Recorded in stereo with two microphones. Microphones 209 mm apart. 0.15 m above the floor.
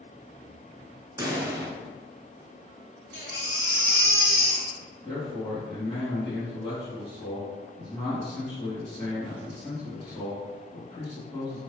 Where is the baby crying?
50° left (ahead or behind), 1.3 m.